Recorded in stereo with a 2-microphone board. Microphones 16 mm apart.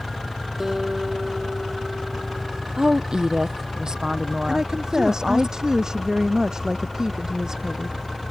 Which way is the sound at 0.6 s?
20° right (ahead or behind).